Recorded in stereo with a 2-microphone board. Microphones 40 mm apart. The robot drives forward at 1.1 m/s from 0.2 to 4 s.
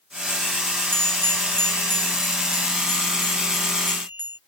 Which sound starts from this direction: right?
A bell, at 0.9 s.